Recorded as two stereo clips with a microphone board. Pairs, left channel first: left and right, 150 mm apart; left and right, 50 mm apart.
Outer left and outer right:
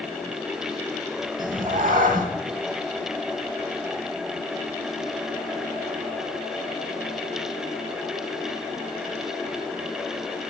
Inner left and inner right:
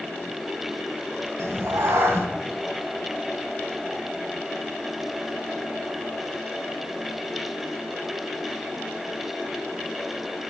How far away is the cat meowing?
About 0.6 m.